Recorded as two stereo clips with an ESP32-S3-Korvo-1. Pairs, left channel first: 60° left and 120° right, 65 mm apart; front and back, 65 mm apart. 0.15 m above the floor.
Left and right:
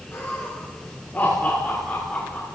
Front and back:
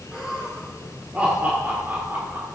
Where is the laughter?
100° left, 3.5 m; by 2.5 s 130° left, 3.5 m.